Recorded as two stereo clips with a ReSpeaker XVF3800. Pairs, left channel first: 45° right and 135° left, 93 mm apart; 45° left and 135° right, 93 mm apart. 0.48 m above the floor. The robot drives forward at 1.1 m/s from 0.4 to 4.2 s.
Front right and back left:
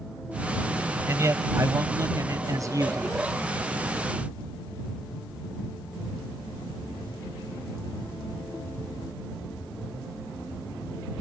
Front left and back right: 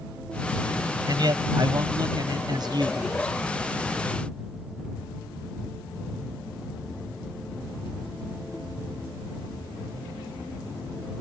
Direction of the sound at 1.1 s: 170° right.